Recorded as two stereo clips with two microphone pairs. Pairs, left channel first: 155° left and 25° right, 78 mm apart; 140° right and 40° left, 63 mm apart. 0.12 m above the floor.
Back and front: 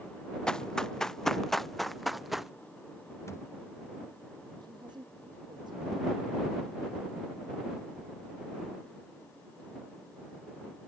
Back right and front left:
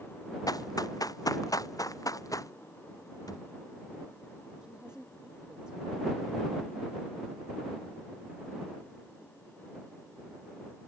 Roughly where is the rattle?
I don't hear a rattle.